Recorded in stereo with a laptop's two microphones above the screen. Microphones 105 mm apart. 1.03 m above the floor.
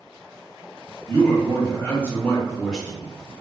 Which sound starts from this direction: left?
A man speaking, at 1.1 s.